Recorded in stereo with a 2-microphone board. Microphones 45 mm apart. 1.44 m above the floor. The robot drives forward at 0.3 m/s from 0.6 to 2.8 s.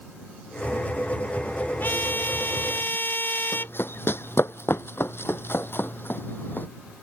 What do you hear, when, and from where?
1.8 s a trumpet: 45° left (ahead or behind)
3.5 s running footsteps: 55° left (ahead or behind); by 6.7 s 45° left (ahead or behind)